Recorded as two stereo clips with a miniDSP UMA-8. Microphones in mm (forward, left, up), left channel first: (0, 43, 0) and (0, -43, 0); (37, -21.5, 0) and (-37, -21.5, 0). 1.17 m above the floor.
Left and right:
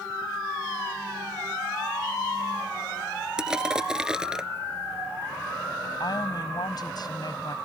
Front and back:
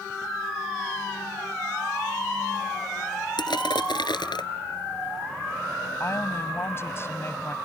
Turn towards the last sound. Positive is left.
turn(degrees=55)